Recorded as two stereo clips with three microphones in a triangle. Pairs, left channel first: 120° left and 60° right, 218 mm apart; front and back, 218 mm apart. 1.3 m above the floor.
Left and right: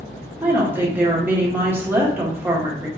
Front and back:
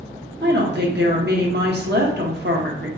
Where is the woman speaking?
140° right, 1.2 m.